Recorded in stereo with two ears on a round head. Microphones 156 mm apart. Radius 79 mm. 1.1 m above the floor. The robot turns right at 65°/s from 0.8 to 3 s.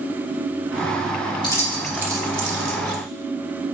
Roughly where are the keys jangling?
Left.